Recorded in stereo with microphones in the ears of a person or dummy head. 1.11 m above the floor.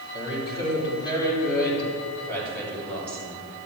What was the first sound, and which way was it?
A woman speaking, 25° left (ahead or behind).